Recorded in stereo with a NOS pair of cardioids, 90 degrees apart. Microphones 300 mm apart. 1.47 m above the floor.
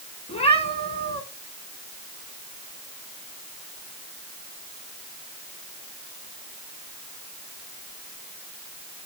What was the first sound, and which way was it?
A cat meowing, 20° left.